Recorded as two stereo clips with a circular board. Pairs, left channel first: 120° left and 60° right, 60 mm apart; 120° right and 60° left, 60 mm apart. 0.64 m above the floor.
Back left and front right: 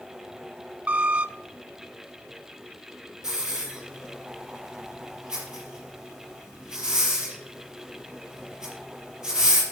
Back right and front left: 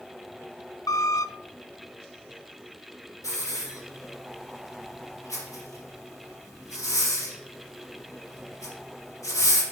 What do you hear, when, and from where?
0.9 s a squeak: 125° right, 0.5 m
3.2 s a hiss: 140° right, 4.5 m